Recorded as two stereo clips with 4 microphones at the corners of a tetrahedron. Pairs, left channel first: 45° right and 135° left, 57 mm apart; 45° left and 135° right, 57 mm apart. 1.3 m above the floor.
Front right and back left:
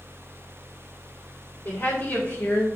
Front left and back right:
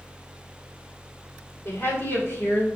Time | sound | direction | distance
1.6 | a woman speaking | 5° left | 4 m